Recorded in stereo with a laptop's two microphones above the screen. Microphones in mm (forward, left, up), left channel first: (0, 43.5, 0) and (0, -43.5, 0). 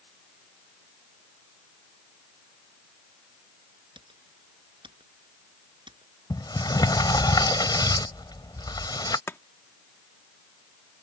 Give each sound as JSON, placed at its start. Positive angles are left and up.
{"t": 4.0, "sound": "typing on a keyboard", "side_deg": -70}
{"t": 6.3, "sound": "a sliding door", "side_deg": 55}
{"t": 9.3, "sound": "chopping", "side_deg": 30}